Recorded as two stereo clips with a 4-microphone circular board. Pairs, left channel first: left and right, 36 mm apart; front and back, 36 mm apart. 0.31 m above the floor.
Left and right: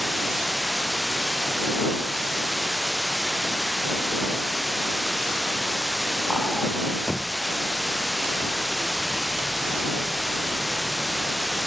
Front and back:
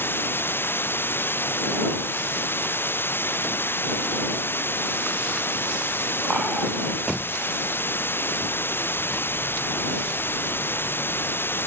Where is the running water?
Straight ahead.